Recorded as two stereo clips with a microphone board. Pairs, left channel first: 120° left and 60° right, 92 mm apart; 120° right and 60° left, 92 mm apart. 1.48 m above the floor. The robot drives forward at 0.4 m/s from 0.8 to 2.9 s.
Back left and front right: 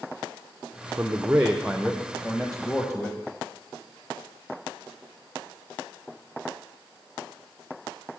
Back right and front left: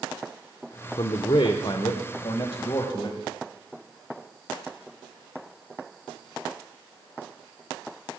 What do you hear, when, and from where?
1.0 s a man speaking: 130° right, 0.6 m; by 3.2 s 160° right, 1.2 m